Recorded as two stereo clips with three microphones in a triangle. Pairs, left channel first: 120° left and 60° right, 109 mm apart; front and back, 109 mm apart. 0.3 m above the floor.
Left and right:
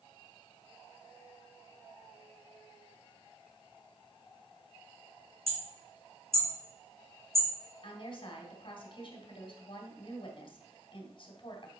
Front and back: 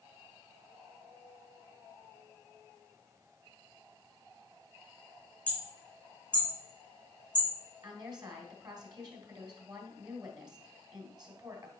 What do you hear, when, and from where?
5.5 s hammering: 80° right, 2.5 m
7.8 s a woman speaking: 140° left, 2 m